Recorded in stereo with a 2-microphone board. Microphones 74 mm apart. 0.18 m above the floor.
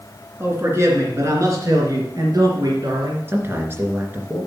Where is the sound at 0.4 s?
35° right (ahead or behind), 2.5 m; by 3.2 s 60° right (ahead or behind), 3.5 m.